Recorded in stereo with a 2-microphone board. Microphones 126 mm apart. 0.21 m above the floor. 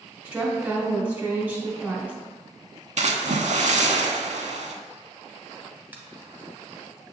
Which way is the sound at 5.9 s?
15° right (ahead or behind).